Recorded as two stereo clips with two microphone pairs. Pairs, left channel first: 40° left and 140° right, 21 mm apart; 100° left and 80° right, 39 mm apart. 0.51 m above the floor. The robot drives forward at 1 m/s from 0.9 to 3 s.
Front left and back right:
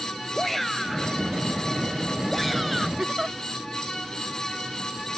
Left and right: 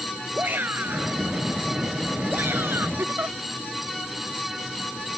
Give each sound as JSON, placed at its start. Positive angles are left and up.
{"t": 0.3, "sound": "a shout", "azimuth_deg": -45}
{"t": 3.0, "sound": "a giggle", "azimuth_deg": -85}